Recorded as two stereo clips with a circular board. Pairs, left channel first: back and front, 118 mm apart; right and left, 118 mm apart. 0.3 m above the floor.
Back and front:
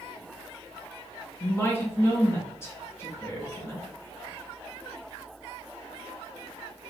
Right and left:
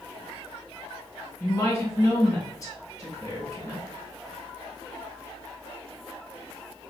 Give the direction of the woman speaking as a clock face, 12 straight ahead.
4 o'clock.